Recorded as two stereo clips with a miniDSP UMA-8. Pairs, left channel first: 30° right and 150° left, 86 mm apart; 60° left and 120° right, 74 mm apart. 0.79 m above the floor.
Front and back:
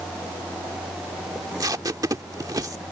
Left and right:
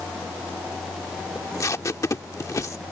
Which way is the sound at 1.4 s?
105° left.